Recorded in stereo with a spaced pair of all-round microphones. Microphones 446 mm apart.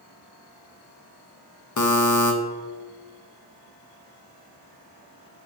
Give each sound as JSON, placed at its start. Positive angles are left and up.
{"t": 1.8, "sound": "a buzzer", "side_deg": 45, "distance_m": 0.5}